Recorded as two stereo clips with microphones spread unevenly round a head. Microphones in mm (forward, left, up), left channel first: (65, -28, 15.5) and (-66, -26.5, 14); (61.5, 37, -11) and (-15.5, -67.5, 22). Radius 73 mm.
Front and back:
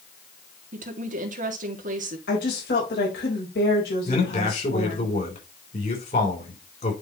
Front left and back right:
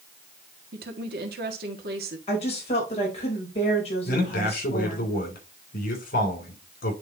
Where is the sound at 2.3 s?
10° left, 3.5 m.